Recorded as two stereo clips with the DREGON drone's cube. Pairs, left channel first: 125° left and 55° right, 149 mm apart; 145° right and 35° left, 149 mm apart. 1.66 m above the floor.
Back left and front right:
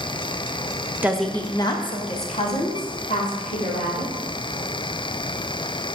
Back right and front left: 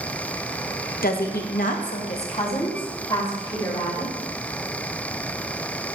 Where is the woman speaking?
135° right, 0.8 m; by 4.2 s 150° left, 3.5 m.